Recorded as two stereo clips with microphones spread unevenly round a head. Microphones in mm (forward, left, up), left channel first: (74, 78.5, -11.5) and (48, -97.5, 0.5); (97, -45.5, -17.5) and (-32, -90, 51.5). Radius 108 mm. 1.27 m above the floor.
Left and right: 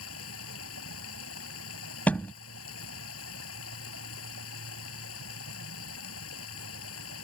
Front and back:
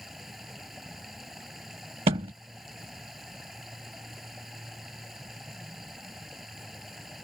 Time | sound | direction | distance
0.0 | running water | 110° left | ?
2.1 | a thud | 165° left | ?